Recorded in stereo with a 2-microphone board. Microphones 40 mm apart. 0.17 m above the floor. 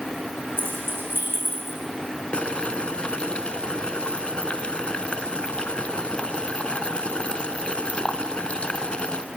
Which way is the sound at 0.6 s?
65° right (ahead or behind).